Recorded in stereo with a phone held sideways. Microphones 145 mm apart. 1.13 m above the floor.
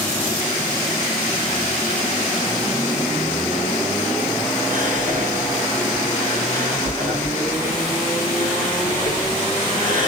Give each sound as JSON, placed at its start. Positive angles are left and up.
{"t": 4.7, "sound": "whispering", "side_deg": -65, "distance_m": 1.5}